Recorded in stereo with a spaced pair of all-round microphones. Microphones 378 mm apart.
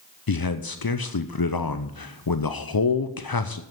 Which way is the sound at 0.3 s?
60° left (ahead or behind).